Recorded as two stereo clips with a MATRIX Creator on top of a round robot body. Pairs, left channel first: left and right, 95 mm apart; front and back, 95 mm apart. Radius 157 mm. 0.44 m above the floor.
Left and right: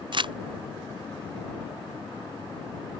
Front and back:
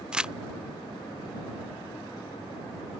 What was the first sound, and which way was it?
Crumpling, 100° right.